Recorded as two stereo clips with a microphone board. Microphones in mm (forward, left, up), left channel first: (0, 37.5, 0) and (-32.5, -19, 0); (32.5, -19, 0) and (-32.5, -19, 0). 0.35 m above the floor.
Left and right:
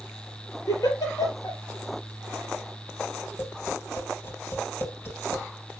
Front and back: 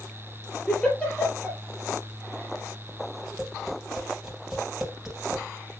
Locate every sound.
0.7 s a giggle: 75° left, 3 m
3.4 s tapping: 100° left, 3 m